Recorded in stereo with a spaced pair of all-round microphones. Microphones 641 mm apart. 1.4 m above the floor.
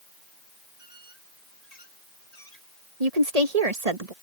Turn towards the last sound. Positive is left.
turn(degrees=-70)  # may be behind; listen again after turning